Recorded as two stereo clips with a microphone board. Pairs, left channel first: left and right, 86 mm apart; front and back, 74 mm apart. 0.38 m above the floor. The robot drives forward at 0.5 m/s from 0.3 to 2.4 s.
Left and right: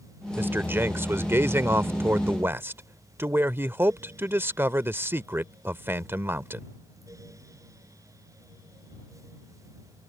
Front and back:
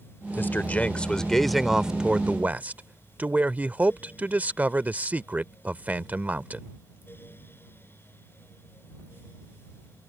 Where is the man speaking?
40° right; by 6.7 s 130° right.